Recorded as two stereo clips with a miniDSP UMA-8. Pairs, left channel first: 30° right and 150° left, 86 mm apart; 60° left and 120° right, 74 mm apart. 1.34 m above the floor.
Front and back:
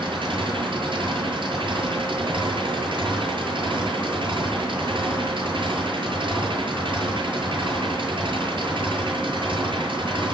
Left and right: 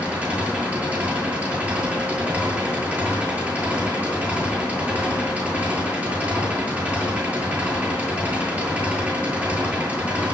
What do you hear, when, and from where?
0.0 s an engine running: 170° left, 8 m